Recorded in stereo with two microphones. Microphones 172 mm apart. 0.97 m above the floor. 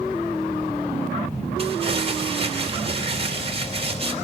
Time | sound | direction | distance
1.6 | crumpling | 35° right (ahead or behind) | 3 m